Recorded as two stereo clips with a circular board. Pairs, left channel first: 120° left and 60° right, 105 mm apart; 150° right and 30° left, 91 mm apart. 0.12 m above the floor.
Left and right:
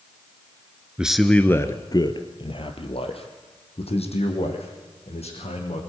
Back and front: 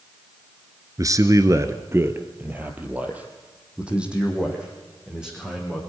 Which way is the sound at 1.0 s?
15° left.